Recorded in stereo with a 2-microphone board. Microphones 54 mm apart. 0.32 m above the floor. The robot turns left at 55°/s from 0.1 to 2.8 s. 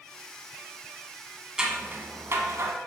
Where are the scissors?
15° right (ahead or behind), 1.2 m; by 2.7 s 70° right (ahead or behind), 1.2 m.